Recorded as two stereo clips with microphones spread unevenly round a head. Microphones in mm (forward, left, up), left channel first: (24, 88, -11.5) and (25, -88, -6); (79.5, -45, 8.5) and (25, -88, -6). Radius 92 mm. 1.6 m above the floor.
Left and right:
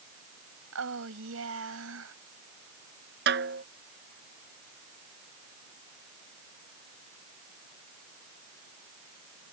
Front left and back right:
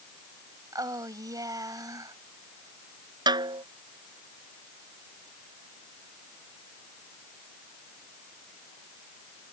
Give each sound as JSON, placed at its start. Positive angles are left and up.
{"t": 0.7, "sound": "a woman speaking", "azimuth_deg": -105}
{"t": 3.3, "sound": "a snare drum", "azimuth_deg": -125}